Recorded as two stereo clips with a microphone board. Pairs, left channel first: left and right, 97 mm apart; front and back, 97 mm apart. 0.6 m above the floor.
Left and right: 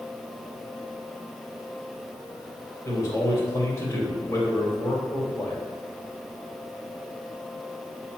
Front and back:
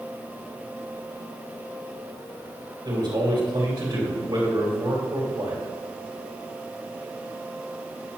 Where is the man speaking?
145° left, 3 m.